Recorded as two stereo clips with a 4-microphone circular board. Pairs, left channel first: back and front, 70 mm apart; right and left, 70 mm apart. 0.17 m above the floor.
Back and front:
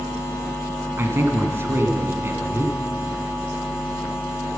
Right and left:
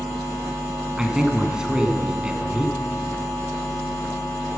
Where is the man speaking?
20° left, 1.4 m.